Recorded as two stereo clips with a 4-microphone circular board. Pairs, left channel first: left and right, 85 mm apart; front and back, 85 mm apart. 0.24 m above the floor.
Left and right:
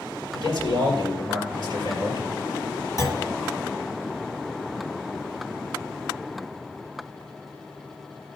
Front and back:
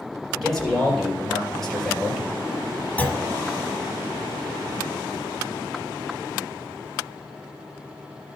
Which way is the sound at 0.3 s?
90° left.